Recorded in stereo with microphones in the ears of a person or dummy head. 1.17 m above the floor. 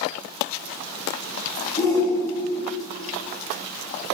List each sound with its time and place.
1.8 s a shout: 15° left (ahead or behind), 2 m